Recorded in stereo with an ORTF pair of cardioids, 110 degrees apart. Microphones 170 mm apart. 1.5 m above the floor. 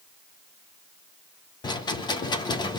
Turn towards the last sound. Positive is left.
turn(degrees=25)